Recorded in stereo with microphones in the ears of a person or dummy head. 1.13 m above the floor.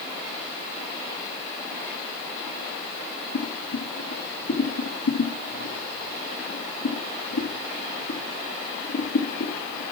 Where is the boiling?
70° left (ahead or behind), 3.5 m.